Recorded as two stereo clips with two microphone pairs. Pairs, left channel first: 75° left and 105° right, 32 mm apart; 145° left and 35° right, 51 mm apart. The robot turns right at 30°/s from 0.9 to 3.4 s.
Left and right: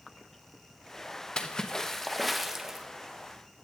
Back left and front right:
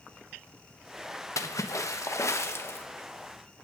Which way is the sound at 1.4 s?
135° left.